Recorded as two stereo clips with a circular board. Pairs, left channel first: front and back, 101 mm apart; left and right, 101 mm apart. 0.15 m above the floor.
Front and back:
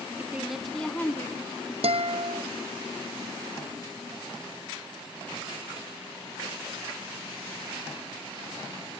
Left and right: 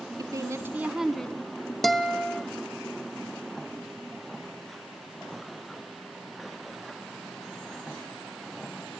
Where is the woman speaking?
115° right, 1.3 m; by 1.7 s 35° left, 1.4 m.